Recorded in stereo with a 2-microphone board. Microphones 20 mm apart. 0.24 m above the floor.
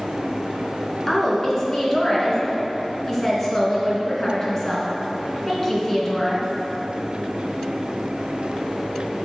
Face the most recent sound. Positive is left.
turn(degrees=25)  # may be behind; listen again after turning